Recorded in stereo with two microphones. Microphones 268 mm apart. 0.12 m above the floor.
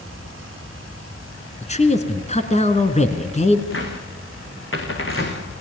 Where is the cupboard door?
50° left (ahead or behind), 4 m.